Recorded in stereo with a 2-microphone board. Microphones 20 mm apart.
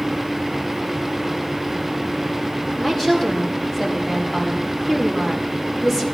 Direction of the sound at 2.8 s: 15° left (ahead or behind).